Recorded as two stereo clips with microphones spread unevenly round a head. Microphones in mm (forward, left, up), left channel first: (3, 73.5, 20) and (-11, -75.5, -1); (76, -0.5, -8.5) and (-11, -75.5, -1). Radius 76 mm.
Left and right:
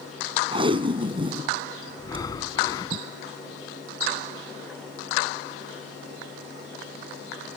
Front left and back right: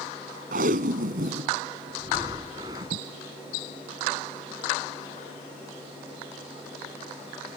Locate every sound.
0.5 s tape being pulled: 155° right
2.0 s breathing: 150° left